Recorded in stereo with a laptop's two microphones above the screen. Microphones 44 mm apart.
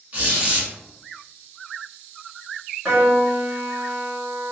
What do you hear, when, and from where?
0.1 s a squeak: 30° right (ahead or behind), 1.1 m
2.9 s a piano: 30° right (ahead or behind), 0.9 m